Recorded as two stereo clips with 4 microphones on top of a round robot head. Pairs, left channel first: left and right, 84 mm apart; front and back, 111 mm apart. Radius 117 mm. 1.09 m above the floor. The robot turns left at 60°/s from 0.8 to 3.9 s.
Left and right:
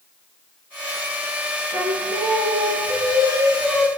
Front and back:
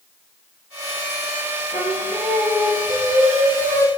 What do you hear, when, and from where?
1.7 s singing: 45° right, 1.0 m; by 3.9 s 175° right, 1.0 m